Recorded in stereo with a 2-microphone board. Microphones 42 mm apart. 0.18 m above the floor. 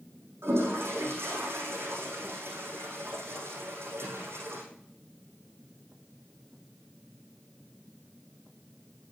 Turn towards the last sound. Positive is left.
turn(degrees=-85)